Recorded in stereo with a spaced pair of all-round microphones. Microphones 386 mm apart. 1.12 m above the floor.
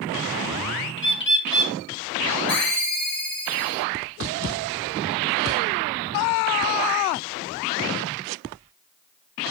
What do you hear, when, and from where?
1.0 s a bird: 30° left (ahead or behind), 0.6 m
2.5 s a ringtone: 5° left (ahead or behind), 1.4 m